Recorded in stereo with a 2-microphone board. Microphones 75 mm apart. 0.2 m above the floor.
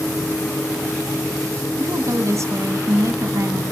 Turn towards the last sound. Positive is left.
turn(degrees=-45)  # may be behind; listen again after turning